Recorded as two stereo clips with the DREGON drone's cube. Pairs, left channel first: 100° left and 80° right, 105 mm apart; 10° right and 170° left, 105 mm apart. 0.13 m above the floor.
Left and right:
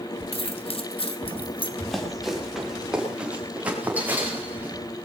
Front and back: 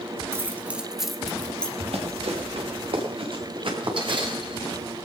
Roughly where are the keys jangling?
Left.